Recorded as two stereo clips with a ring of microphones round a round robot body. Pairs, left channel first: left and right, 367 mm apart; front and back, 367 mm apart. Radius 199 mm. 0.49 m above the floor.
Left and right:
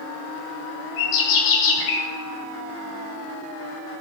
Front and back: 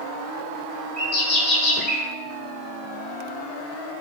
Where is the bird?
60° left, 1.3 m.